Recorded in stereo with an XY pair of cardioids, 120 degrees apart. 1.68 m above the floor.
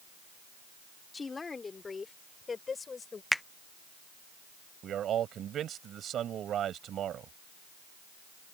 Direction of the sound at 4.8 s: 55° right.